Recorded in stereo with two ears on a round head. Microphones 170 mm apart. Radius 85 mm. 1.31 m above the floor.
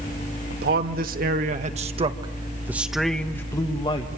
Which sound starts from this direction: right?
A man speaking, at 0.5 s.